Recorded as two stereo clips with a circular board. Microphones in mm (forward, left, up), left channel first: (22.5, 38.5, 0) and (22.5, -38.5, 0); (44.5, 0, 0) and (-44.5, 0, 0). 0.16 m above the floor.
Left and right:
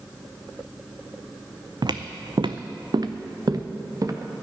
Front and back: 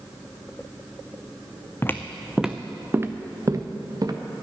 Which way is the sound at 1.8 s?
65° right.